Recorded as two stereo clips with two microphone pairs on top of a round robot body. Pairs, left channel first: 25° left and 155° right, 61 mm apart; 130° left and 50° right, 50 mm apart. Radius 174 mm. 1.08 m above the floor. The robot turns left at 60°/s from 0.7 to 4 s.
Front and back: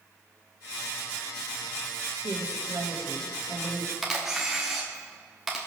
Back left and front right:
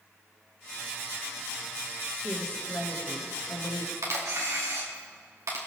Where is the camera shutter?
70° right, 1.0 m.